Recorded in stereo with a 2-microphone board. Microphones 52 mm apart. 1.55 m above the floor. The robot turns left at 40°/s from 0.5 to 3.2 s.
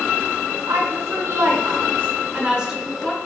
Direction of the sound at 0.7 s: 85° right.